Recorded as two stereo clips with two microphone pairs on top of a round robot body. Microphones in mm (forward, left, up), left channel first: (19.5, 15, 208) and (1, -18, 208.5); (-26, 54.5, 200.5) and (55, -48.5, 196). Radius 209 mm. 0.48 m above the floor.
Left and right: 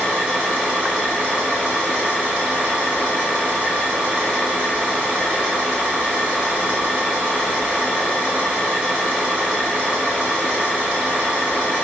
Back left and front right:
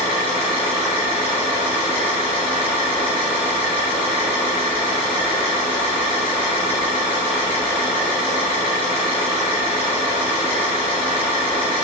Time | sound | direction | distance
0.0 | an engine running | straight behind | 1.0 m